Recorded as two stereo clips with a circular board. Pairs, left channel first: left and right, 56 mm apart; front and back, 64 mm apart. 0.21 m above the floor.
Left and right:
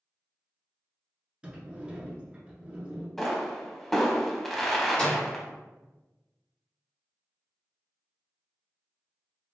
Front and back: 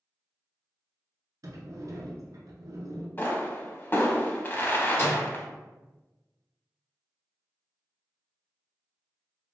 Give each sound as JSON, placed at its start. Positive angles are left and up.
{"t": 1.4, "sound": "a sliding door", "azimuth_deg": -160, "distance_m": 0.8}
{"t": 3.2, "sound": "a pop", "azimuth_deg": 10, "distance_m": 0.5}
{"t": 5.0, "sound": "a microwave", "azimuth_deg": 30, "distance_m": 1.2}